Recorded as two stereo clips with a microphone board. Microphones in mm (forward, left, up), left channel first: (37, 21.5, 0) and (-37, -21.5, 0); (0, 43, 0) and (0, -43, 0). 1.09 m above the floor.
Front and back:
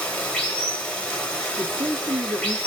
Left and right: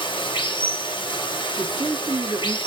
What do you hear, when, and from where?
0.0 s running water: 105° left, 0.9 m
1.6 s a man speaking: 120° right, 1.1 m